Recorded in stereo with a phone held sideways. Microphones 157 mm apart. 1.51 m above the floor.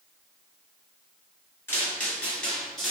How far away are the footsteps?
About 1.5 m.